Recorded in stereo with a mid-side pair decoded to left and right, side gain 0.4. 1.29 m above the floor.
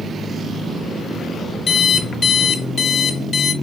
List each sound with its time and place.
1.7 s an alarm clock: 55° left, 1.1 m